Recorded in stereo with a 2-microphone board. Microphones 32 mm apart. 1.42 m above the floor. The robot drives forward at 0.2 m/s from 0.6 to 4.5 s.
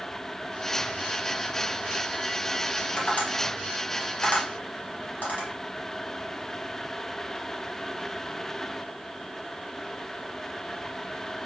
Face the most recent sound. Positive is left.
turn(degrees=65)  # may be behind; listen again after turning